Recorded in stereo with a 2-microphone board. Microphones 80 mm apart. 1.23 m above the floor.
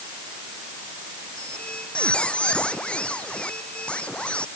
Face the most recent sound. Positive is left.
turn(degrees=15)  # may be behind; listen again after turning